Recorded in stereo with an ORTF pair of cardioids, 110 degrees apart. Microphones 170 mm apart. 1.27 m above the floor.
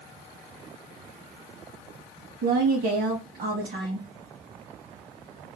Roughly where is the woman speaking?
Ahead right.